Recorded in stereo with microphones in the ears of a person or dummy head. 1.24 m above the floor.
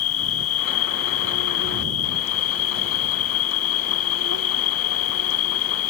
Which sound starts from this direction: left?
An insect, at 0.0 s.